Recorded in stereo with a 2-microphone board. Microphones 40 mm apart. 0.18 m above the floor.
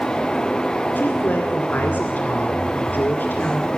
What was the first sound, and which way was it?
A woman speaking, 50° left (ahead or behind).